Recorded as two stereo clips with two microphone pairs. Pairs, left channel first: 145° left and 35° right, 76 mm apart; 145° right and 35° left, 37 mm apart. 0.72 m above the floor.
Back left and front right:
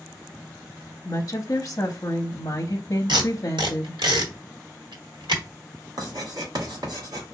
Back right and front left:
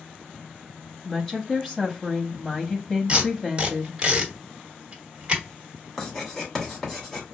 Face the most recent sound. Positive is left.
turn(degrees=-65)